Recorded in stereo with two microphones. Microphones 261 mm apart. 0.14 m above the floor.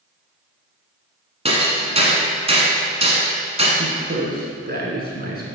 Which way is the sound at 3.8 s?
40° right (ahead or behind).